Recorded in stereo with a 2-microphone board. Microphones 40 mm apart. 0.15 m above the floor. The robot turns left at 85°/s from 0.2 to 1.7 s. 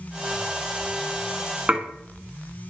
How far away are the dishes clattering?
About 0.9 m.